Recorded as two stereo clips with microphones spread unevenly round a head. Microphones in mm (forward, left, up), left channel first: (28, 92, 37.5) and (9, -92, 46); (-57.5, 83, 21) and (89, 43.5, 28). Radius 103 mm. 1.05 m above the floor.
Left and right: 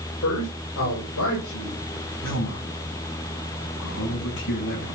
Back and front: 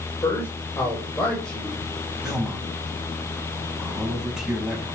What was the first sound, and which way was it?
A man speaking, 95° left.